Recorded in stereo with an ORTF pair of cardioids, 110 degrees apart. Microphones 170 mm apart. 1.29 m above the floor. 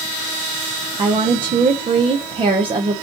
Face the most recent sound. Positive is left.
turn(degrees=-30)